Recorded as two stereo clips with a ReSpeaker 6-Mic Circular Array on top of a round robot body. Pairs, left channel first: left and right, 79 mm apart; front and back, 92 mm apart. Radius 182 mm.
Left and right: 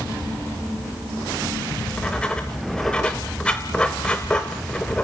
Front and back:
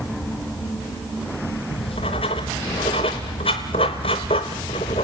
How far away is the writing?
About 0.7 m.